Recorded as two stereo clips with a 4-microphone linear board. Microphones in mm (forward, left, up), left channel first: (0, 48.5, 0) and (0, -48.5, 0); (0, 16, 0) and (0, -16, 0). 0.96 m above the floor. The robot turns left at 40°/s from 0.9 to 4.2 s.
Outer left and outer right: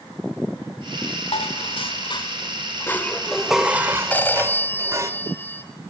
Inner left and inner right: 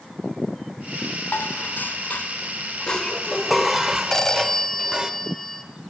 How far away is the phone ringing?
About 3 m.